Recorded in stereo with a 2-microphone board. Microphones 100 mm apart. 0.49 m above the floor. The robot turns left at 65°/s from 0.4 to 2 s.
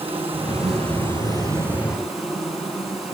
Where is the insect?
75° right, 8 m; by 3.1 s straight behind, 8 m.